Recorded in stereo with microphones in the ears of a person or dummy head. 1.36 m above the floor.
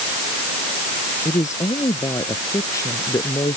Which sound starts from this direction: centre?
A woman speaking, at 1.2 s.